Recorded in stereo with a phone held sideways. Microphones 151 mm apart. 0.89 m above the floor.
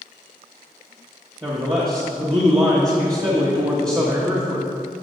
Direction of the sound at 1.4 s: 25° right (ahead or behind).